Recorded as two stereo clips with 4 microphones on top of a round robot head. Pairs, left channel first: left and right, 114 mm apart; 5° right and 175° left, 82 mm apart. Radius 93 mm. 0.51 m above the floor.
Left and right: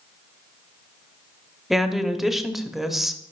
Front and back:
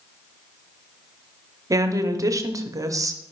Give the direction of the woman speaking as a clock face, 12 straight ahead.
6 o'clock.